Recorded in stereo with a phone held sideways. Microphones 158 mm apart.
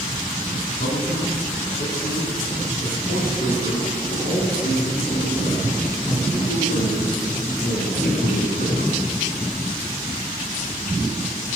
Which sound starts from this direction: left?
A man speaking, at 0.8 s.